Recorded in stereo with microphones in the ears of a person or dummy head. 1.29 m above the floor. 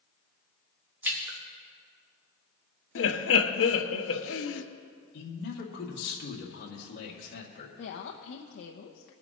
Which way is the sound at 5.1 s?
65° left (ahead or behind).